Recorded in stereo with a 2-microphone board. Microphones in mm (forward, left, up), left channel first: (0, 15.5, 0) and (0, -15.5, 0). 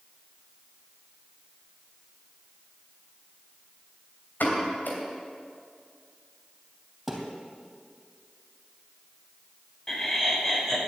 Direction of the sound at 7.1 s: Centre (ahead or behind).